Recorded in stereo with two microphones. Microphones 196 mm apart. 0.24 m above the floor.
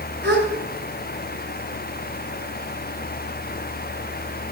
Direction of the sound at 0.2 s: 55° right (ahead or behind).